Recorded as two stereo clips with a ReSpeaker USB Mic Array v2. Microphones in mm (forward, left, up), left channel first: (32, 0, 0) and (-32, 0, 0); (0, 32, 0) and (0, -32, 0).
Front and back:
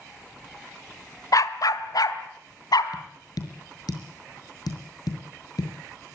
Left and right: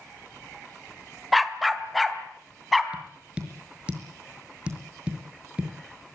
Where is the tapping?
15° right, 5 m.